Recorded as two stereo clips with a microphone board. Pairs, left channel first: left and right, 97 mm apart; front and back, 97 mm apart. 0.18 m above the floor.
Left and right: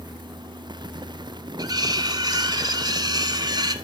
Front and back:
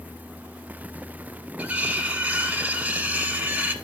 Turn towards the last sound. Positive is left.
turn(degrees=-110)